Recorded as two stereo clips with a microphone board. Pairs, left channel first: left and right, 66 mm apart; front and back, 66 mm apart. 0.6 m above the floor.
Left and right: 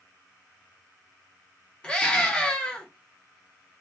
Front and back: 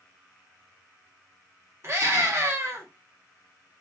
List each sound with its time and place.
1.8 s a scream: 155° left, 0.8 m